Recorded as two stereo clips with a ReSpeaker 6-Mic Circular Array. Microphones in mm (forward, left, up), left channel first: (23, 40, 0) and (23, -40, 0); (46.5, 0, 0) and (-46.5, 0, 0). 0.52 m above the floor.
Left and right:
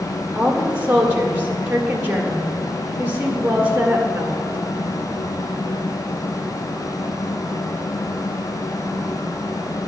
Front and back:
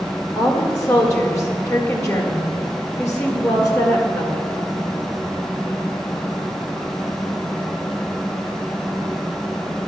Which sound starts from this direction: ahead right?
A woman speaking, at 0.3 s.